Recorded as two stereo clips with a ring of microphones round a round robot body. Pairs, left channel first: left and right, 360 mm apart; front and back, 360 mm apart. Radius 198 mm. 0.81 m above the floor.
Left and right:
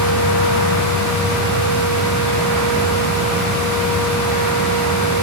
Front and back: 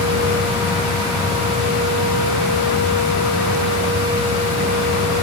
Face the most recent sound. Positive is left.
No sound to turn to.